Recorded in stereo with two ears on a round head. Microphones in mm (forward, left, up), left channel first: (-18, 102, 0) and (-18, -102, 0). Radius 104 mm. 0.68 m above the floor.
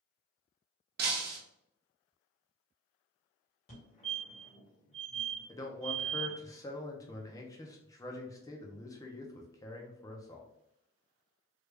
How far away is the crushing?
I don't hear crushing.